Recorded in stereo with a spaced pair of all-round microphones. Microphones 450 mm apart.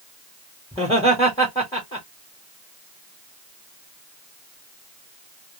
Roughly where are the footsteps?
I don't hear footsteps.